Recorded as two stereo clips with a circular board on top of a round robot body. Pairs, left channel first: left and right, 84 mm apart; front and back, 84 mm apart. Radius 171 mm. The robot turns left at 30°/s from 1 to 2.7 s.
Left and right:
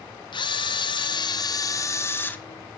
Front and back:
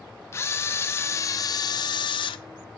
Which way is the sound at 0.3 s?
60° left.